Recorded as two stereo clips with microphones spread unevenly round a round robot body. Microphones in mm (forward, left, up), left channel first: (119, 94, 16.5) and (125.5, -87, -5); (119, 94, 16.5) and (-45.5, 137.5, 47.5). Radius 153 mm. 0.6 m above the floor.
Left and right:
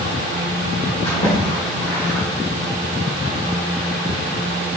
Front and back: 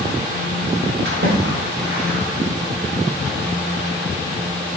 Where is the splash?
160° left, 2.5 m.